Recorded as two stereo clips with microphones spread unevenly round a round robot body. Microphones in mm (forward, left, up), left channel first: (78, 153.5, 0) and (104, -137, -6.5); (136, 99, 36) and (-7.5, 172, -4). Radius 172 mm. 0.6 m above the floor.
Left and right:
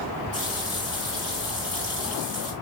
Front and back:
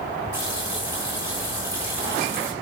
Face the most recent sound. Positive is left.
turn(degrees=-160)